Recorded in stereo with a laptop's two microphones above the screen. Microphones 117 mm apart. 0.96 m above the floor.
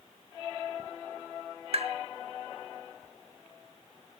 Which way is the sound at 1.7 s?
55° right (ahead or behind).